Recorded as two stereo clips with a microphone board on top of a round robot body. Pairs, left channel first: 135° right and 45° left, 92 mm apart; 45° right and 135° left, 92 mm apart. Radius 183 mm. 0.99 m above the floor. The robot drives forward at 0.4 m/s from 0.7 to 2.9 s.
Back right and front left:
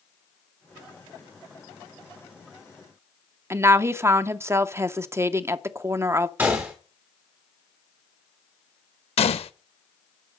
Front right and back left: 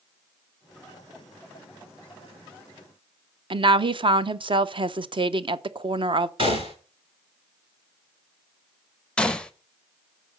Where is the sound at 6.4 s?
115° left, 0.8 m.